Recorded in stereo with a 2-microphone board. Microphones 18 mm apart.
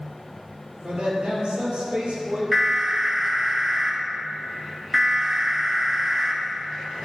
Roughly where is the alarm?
Centre.